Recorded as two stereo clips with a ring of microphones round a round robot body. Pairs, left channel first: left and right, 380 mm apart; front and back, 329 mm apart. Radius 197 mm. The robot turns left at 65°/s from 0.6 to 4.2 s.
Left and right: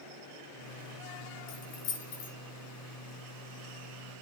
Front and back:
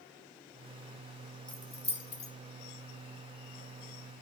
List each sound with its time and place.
1.5 s keys jangling: 90° left, 2.5 m; by 2.3 s 30° left, 2.5 m